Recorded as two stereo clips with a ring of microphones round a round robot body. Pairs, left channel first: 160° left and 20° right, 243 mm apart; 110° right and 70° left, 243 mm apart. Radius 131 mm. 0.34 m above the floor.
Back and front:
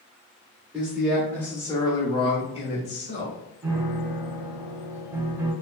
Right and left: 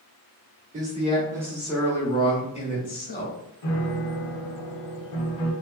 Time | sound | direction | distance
0.7 | a man speaking | 60° left | 1.0 m
3.6 | a piano | 105° right | 0.7 m